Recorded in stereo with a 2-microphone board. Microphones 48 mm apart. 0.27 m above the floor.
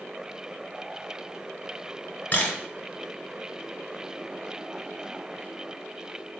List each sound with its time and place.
2.3 s a camera shutter: 35° left (ahead or behind), 2.5 m